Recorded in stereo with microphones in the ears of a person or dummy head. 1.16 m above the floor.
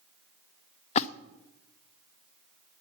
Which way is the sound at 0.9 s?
40° left (ahead or behind).